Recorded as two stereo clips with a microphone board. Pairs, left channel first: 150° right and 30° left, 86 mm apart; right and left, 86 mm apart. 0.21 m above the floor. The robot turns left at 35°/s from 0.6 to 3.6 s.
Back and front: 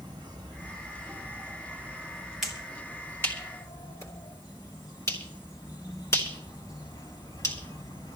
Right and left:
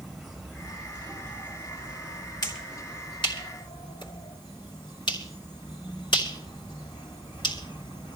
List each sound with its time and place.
0.0 s an insect: 5° right, 4 m; by 8.2 s 110° right, 4 m
2.4 s a finger snap: 60° right, 2.5 m; by 8.2 s 100° right, 2.5 m